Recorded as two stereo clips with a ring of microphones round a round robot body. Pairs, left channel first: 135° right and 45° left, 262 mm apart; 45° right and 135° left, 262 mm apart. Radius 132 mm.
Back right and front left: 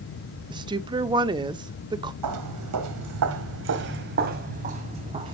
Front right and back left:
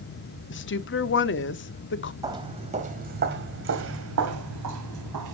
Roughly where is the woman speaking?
Ahead.